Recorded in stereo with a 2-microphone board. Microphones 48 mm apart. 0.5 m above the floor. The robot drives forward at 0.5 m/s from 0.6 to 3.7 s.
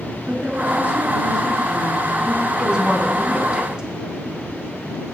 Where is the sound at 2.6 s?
20° right (ahead or behind), 4.5 m; by 3.9 s 15° right (ahead or behind), 5 m.